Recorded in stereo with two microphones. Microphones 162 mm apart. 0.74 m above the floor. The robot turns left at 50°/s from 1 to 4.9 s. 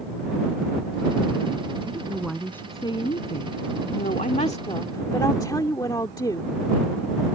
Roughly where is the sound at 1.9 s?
Behind right.